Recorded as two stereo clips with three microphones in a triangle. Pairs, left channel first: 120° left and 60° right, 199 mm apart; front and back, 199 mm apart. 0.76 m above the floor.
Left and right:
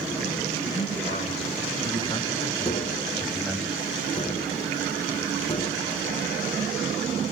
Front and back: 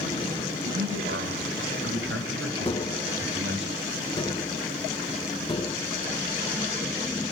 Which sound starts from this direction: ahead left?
Tapping, at 2.6 s.